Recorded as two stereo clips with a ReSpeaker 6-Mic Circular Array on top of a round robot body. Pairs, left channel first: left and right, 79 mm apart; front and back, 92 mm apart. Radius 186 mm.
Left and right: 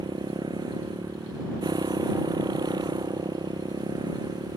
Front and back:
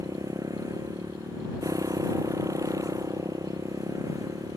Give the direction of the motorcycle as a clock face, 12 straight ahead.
4 o'clock.